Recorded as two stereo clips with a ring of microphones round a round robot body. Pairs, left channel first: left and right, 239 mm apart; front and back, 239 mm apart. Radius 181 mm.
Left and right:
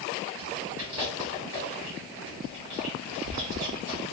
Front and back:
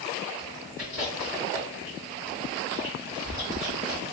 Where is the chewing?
100° right, 2.0 m.